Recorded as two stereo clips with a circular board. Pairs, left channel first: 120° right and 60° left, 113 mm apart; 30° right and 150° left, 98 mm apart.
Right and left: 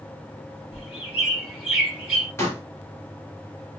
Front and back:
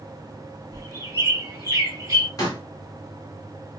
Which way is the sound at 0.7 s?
130° left.